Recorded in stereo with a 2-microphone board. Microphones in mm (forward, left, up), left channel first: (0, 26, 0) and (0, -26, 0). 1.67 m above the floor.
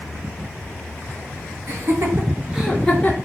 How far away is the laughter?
About 0.9 m.